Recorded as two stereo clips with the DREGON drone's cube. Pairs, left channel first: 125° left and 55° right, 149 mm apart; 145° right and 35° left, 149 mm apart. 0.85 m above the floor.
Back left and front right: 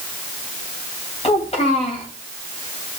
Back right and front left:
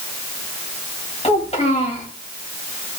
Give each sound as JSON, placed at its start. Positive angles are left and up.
{"t": 1.2, "sound": "a child speaking", "azimuth_deg": 170, "distance_m": 3.5}